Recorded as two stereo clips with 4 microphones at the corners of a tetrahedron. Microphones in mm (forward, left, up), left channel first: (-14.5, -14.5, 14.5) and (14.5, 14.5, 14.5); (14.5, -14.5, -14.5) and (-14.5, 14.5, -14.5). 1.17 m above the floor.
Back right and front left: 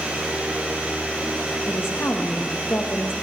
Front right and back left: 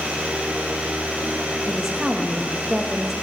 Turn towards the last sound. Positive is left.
turn(degrees=-145)